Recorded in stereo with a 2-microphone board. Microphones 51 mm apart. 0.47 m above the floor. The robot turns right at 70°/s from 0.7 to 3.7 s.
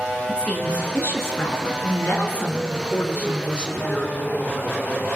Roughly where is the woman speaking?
Ahead left.